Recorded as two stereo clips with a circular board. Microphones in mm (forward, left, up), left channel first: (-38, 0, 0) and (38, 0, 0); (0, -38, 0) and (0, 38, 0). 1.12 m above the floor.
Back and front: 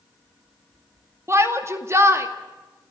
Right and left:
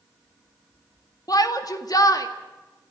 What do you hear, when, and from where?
1.3 s a shout: 55° right, 2 m